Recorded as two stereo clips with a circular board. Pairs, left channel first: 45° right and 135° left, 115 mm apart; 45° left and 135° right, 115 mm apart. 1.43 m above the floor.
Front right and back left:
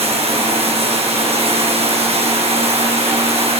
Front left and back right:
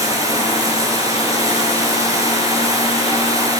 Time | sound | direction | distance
0.0 | running water | 165° left | 8.5 m